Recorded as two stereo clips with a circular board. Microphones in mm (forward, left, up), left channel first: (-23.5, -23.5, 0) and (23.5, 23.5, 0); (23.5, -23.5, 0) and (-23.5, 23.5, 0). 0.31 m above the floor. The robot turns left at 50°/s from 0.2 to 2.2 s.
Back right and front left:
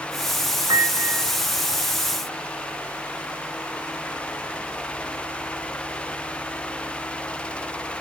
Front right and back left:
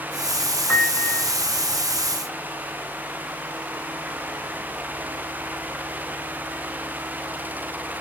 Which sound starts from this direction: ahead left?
A piano, at 0.7 s.